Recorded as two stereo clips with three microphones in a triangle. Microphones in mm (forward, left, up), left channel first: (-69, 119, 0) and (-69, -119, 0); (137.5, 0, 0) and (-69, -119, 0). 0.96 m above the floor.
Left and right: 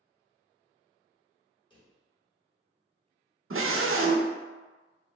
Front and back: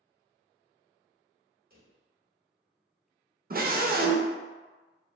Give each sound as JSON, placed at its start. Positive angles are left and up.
{"t": 1.7, "sound": "a drawer", "azimuth_deg": 160, "distance_m": 1.1}
{"t": 3.5, "sound": "a scream", "azimuth_deg": -100, "distance_m": 0.5}